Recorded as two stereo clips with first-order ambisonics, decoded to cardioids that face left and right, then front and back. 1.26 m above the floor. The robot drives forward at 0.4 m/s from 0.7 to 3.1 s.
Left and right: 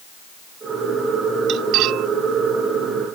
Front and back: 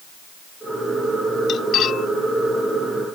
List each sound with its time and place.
1.5 s cutlery clinking: 50° right; by 2.1 s 55° right